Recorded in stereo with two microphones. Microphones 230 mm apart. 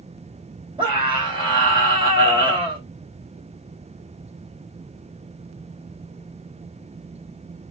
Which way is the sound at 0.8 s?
20° right (ahead or behind).